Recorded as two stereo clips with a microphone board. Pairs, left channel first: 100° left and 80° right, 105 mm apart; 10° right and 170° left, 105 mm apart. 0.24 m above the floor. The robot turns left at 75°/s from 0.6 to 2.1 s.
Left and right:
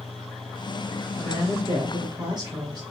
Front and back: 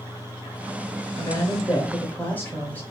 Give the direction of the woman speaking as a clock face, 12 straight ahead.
12 o'clock.